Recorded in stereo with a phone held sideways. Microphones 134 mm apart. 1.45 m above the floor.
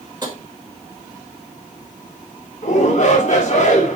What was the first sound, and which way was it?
Tapping, 30° right (ahead or behind).